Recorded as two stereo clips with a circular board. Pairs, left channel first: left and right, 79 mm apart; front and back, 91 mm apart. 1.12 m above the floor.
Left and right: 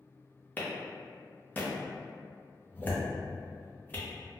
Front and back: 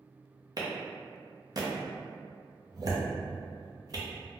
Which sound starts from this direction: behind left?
A clap, at 0.6 s.